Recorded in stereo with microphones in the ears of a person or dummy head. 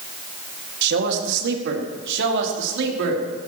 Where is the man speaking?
70° right (ahead or behind), 2.5 m; by 3.5 s 75° right (ahead or behind), 4 m.